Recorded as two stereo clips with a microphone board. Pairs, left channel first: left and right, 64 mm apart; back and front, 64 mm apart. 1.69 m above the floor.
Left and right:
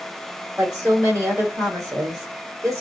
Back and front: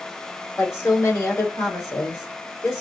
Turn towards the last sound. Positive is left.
turn(degrees=-135)